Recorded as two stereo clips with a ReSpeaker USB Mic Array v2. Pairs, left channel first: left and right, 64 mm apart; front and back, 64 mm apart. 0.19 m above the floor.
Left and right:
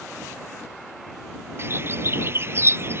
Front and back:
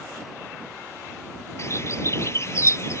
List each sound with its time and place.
1.6 s a bird: 40° right